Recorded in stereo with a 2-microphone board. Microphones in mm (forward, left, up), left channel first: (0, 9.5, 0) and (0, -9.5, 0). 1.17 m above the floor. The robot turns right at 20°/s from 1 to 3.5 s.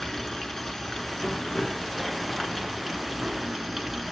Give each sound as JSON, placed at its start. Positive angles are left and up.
{"t": 0.0, "sound": "running water", "azimuth_deg": 110, "distance_m": 1.2}